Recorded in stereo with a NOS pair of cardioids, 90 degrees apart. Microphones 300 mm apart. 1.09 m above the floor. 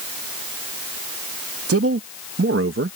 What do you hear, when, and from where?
1.7 s a man speaking: 55° right; by 3.0 s 50° right